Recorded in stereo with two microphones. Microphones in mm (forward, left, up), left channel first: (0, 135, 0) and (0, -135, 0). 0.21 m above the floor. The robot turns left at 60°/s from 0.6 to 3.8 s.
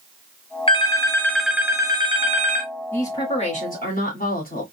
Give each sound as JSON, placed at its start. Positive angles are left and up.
{"t": 0.7, "sound": "a phone ringing", "side_deg": 20, "distance_m": 0.6}
{"t": 2.9, "sound": "a woman speaking", "azimuth_deg": 170, "distance_m": 1.4}